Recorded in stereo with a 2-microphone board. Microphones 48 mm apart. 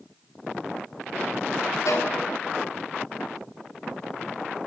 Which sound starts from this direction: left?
A violin, at 1.9 s.